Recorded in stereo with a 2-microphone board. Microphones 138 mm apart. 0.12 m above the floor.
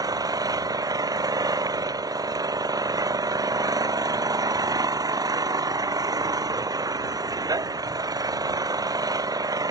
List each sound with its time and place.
0.0 s an engine running: 30° right (ahead or behind)